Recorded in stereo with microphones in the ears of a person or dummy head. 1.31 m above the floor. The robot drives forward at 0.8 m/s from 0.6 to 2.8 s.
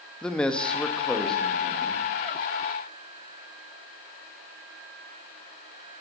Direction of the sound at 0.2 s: Centre (ahead or behind).